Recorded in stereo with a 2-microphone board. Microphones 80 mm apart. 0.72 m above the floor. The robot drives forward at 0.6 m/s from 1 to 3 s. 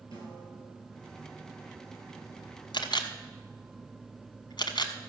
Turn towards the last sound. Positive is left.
turn(degrees=70)  # may be behind; listen again after turning